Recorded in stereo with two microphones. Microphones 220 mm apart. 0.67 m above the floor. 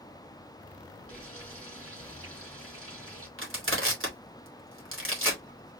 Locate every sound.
1.1 s frying: 80° right, 3 m
3.4 s crushing: 65° right (ahead or behind), 2.5 m